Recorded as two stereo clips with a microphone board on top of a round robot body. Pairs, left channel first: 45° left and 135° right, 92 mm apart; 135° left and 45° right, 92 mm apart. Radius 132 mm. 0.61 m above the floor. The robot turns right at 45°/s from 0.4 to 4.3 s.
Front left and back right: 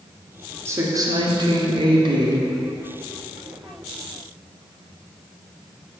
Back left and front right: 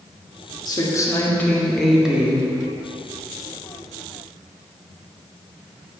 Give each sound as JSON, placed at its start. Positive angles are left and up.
{"t": 0.7, "sound": "a woman speaking", "azimuth_deg": 170, "distance_m": 1.8}